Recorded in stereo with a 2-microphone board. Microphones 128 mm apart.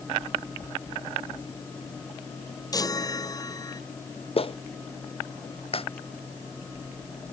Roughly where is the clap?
Left.